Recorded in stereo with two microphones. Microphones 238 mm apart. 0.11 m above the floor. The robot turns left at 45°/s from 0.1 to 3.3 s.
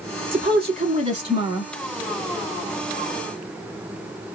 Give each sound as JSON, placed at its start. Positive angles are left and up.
{"t": 0.3, "sound": "a woman speaking", "side_deg": -25, "distance_m": 1.2}